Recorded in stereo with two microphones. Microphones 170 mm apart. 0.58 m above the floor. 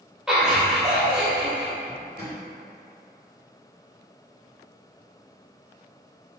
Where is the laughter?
5° right (ahead or behind), 0.8 m.